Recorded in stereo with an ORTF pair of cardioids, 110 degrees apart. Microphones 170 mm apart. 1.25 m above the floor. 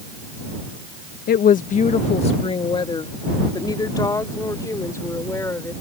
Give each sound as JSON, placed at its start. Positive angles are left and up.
{"t": 1.3, "sound": "a woman speaking", "azimuth_deg": 65}